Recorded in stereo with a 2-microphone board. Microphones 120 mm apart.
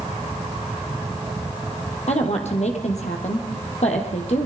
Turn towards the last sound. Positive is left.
turn(degrees=70)  # may be behind; listen again after turning